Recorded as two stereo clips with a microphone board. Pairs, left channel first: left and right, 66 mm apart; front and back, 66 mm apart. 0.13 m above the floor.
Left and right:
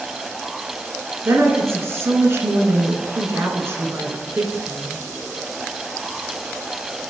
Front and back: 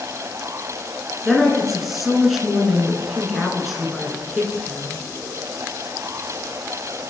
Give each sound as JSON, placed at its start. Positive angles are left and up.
{"t": 1.2, "sound": "a woman speaking", "azimuth_deg": -95, "distance_m": 1.3}